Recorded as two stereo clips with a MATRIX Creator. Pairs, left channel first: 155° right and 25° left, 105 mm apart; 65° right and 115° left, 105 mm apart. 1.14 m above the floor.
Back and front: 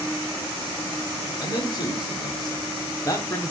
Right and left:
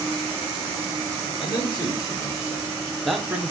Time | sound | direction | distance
1.4 | a man speaking | 110° right | 1.5 m